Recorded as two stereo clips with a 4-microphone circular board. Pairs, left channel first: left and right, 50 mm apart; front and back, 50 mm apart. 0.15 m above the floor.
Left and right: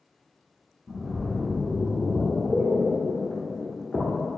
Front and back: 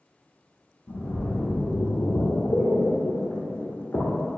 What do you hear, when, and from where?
0.9 s a splash: 20° left, 0.7 m